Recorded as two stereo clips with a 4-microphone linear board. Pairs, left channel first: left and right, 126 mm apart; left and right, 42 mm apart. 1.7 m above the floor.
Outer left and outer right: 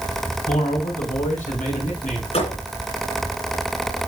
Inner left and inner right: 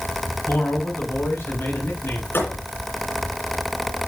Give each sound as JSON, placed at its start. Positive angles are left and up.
{"t": 0.5, "sound": "a man speaking", "side_deg": 85, "distance_m": 6.0}
{"t": 2.3, "sound": "a thud", "side_deg": 55, "distance_m": 10.0}